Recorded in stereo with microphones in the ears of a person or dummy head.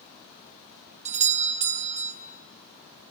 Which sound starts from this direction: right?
A doorbell, at 1.1 s.